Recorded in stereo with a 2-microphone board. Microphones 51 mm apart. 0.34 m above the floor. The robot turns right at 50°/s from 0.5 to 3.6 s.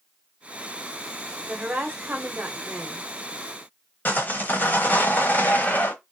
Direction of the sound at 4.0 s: 35° left (ahead or behind).